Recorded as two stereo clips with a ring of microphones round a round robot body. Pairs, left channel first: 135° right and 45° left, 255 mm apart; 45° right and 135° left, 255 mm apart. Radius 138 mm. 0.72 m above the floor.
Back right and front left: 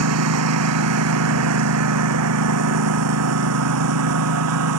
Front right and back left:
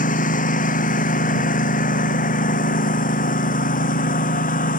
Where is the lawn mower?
15° left.